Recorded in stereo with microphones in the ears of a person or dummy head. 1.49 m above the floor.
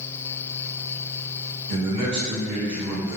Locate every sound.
1.7 s a man speaking: 80° right, 1.3 m